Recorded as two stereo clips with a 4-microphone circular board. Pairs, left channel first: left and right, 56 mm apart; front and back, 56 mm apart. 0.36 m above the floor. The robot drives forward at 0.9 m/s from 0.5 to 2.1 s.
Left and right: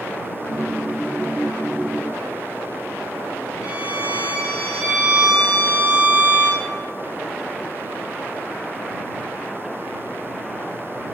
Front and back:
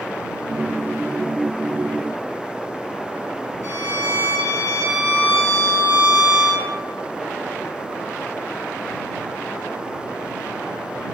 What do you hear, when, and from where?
3.6 s a violin: 170° right, 1.8 m